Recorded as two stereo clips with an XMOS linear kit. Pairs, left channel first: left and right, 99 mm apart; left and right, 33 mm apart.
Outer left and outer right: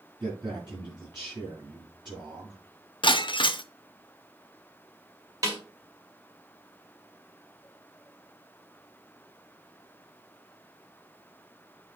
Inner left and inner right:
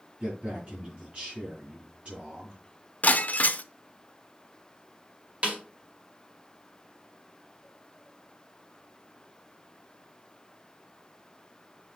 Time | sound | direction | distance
0.2 | a man speaking | 45° right (ahead or behind) | 4.5 m
3.0 | breaking glass | 55° left (ahead or behind) | 0.5 m
5.4 | a snare drum | 35° right (ahead or behind) | 1.9 m